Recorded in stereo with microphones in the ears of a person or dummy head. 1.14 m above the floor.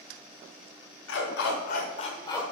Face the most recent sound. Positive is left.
turn(degrees=10)  # may be behind; listen again after turning